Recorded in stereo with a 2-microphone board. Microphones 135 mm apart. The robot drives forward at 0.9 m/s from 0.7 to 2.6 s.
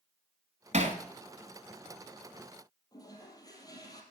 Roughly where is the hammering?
Right.